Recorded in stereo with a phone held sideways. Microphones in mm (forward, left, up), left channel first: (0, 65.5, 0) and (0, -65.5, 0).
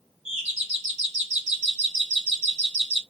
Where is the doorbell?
65° right (ahead or behind), 3 m.